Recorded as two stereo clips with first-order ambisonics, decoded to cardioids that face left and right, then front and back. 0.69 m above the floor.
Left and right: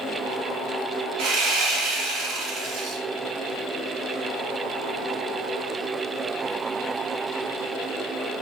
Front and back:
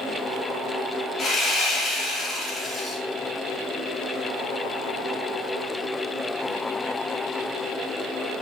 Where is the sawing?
70° right, 0.8 m.